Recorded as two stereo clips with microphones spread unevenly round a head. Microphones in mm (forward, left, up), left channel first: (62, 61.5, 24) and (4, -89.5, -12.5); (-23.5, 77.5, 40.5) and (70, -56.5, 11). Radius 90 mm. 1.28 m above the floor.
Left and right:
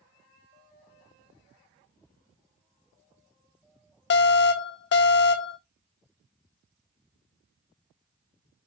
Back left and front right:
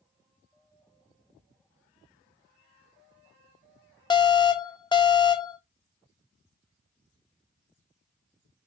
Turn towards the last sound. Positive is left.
turn(degrees=65)